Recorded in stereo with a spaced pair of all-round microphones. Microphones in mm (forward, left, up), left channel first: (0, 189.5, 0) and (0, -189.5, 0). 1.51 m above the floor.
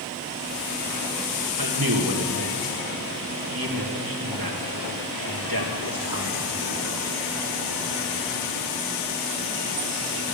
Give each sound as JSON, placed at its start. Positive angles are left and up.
{"t": 1.6, "sound": "a man speaking", "side_deg": -65, "distance_m": 1.7}